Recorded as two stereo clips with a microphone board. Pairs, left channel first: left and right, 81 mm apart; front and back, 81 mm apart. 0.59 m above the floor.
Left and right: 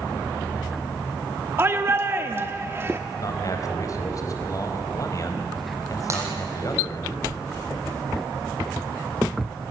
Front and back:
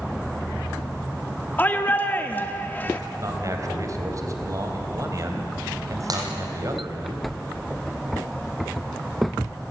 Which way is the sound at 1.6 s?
50° right.